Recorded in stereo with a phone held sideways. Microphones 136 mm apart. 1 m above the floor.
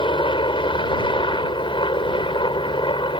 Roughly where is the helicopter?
Left.